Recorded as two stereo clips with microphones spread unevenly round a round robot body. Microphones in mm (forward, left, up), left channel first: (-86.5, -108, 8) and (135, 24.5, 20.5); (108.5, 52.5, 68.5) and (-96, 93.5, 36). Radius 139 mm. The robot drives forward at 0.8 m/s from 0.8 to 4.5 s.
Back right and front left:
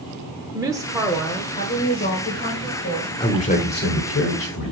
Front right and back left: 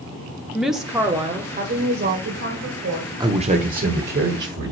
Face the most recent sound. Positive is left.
turn(degrees=175)